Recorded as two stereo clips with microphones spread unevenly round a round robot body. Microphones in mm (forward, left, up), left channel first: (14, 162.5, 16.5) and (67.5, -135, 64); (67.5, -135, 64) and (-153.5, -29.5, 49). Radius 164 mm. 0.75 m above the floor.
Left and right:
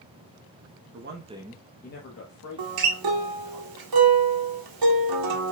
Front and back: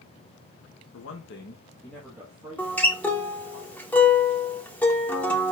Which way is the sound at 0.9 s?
30° right.